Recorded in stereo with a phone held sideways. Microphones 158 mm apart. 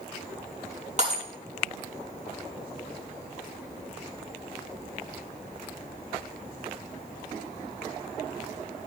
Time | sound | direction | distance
1.0 | breaking glass | 45° right (ahead or behind) | 6 m